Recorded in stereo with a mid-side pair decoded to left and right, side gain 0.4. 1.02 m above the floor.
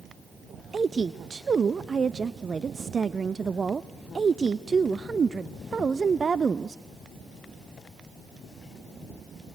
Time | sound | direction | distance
0.7 | a woman speaking | 40° right | 0.6 m